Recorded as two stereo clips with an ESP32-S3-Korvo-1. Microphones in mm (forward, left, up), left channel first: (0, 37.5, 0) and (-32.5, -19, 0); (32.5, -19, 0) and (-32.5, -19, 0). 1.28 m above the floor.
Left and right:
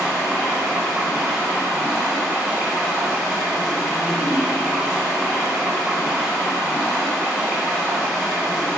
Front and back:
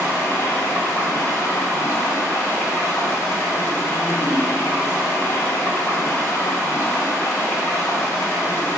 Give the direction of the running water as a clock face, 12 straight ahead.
2 o'clock.